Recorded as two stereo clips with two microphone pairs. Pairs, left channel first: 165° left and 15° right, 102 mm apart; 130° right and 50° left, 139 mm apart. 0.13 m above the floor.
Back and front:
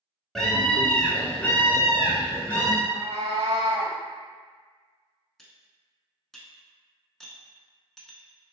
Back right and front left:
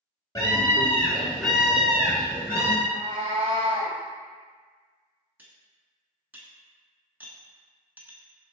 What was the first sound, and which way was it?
A scream, 115° right.